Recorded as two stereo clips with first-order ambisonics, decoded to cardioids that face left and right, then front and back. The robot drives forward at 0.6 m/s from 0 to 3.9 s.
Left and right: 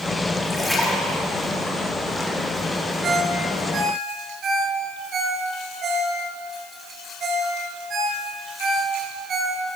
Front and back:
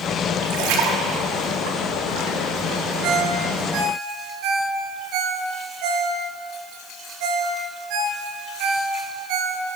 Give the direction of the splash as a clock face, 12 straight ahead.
6 o'clock.